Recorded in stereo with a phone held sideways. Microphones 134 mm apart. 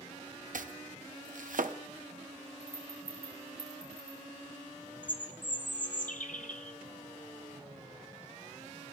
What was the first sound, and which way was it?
Chopping, 80° right.